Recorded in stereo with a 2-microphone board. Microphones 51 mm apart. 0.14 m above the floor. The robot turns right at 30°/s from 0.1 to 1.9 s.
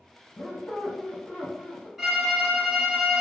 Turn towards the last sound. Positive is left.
turn(degrees=0)  # may be behind; listen again after turning